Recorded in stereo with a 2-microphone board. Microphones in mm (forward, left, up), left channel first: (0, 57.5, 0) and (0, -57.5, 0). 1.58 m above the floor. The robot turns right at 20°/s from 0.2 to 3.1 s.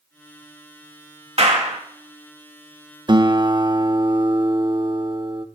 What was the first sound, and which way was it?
A clap, 65° right (ahead or behind).